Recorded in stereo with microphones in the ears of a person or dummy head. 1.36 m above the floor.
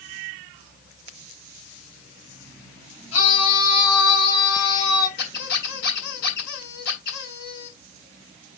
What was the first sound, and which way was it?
A scream, 35° left (ahead or behind).